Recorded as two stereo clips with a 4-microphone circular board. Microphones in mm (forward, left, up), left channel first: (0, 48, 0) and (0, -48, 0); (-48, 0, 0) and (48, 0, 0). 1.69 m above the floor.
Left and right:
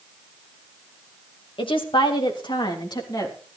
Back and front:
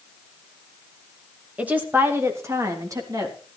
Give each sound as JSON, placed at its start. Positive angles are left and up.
{"t": 1.6, "sound": "a woman speaking", "azimuth_deg": 75, "distance_m": 2.5}